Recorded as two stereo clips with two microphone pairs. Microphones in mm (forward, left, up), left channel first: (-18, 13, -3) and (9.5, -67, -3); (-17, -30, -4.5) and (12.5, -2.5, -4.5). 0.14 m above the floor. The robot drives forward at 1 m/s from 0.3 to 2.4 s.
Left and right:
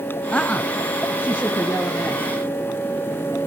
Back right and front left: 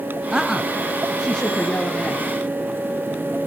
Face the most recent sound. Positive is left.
turn(degrees=170)